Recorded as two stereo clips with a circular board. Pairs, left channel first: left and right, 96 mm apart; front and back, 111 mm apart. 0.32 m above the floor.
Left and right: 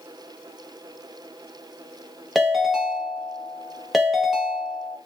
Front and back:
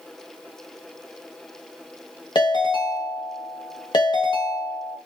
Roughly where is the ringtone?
Ahead.